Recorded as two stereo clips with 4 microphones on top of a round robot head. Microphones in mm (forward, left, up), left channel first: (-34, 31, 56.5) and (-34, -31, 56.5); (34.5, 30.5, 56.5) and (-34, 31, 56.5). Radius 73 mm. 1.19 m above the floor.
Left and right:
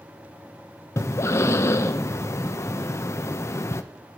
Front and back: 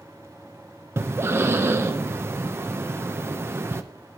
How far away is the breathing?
About 1.1 m.